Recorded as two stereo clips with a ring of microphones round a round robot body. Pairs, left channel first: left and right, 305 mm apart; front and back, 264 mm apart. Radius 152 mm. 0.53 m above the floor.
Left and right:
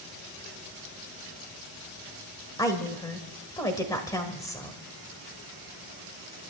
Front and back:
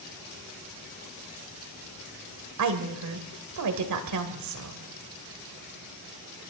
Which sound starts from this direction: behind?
A woman speaking, at 2.6 s.